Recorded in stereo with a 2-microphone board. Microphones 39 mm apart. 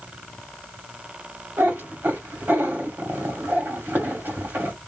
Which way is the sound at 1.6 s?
60° right (ahead or behind).